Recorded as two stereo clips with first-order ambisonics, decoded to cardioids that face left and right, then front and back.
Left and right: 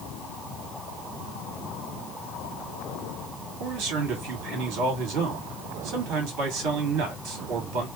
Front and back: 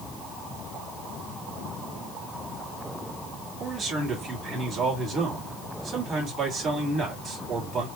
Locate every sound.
3.6 s a man speaking: 110° right, 2.5 m